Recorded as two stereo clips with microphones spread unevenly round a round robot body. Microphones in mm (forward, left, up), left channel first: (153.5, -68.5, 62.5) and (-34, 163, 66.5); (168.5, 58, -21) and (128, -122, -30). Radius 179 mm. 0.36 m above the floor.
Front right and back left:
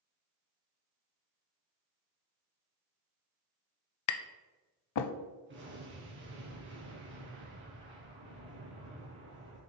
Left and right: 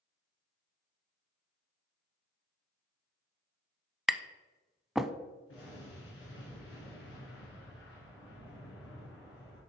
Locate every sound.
4.1 s tapping: 15° right, 0.5 m
5.5 s an explosion: 75° left, 3 m